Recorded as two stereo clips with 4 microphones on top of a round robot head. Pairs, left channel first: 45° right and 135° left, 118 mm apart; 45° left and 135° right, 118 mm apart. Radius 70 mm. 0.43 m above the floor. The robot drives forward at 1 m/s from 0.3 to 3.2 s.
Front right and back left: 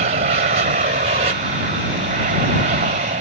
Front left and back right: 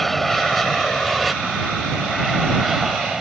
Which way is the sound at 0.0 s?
135° left.